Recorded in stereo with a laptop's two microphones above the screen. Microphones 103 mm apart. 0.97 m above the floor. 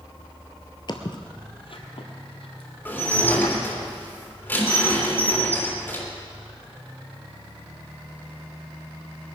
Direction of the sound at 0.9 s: 45° left (ahead or behind).